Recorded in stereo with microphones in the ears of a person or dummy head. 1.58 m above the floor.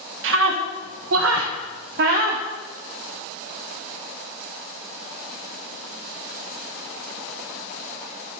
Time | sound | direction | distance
0.2 | a scream | 75° right (ahead or behind) | 1.6 m